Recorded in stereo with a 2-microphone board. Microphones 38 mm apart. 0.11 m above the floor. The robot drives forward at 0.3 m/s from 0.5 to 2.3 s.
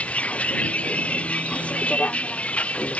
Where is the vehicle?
35° left (ahead or behind).